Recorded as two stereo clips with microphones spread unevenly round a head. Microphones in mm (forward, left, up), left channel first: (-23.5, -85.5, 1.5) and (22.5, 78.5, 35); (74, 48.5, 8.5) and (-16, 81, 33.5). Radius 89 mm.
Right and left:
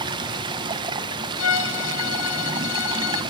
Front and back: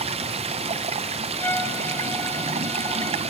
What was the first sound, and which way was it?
Running water, 140° left.